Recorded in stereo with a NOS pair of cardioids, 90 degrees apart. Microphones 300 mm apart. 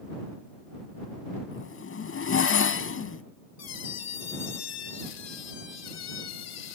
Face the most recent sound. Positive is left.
turn(degrees=55)